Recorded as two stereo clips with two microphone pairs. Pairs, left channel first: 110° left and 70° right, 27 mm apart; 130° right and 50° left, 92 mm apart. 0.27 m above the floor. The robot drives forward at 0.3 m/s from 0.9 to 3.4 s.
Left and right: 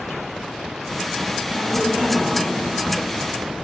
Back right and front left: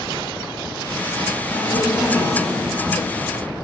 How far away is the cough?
About 2 m.